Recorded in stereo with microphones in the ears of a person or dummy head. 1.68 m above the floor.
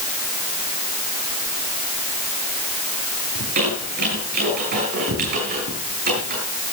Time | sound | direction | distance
3.4 | a squeak | 50° right (ahead or behind) | 6.5 m